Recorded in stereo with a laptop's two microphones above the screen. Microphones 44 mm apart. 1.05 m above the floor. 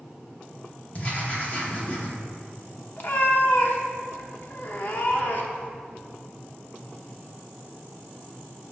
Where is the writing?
35° left (ahead or behind), 1.0 m.